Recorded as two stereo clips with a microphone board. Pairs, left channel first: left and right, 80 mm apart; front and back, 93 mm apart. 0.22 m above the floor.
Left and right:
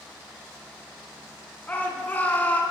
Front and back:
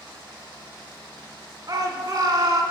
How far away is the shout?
About 2 m.